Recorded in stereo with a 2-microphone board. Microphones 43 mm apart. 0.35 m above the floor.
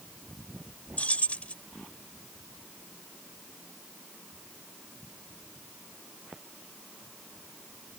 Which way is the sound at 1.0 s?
35° left (ahead or behind).